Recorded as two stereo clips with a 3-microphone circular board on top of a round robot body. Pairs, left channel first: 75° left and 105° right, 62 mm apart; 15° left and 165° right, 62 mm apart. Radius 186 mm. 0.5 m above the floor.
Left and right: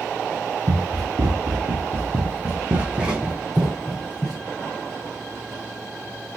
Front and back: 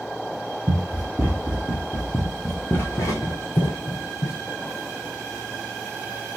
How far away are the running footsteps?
About 1.3 m.